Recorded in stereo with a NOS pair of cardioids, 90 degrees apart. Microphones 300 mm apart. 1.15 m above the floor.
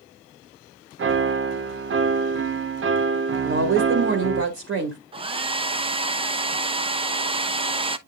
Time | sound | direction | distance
1.0 | a piano | 45° right | 0.8 m
3.4 | a woman speaking | 50° right | 2 m
5.1 | a hair dryer | 20° right | 0.9 m